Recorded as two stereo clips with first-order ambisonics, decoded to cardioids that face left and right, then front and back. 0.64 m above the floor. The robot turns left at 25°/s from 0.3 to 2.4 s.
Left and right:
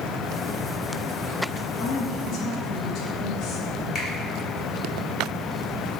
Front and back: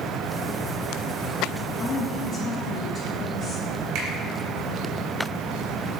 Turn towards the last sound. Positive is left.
turn(degrees=160)